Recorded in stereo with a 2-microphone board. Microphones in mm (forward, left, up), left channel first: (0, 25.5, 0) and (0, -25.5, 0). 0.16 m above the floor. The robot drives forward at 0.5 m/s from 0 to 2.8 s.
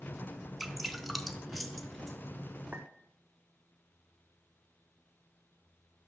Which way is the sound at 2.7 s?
30° right (ahead or behind).